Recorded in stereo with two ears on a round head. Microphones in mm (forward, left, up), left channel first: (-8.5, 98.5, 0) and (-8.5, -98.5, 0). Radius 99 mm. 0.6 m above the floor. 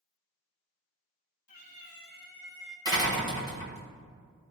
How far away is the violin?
I don't hear a violin.